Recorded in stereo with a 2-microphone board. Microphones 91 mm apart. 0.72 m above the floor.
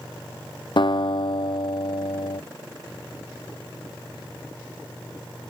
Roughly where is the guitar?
Left.